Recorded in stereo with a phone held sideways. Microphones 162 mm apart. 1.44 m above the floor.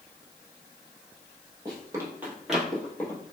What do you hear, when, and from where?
1.6 s running footsteps: 25° right (ahead or behind), 1.6 m; by 3.2 s 20° left (ahead or behind), 1.5 m